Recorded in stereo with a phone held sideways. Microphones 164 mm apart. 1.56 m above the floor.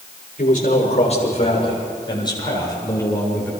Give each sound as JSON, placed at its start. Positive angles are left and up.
{"t": 0.4, "sound": "a man speaking", "side_deg": 50, "distance_m": 7.0}